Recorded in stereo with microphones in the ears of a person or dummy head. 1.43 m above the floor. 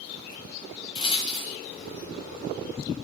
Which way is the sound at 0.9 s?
30° left (ahead or behind).